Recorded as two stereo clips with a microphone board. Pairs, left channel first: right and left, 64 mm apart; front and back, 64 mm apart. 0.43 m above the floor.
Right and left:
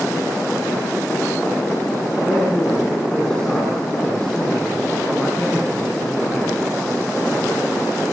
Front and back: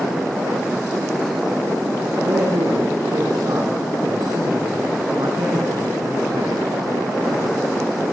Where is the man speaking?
165° right, 3 m.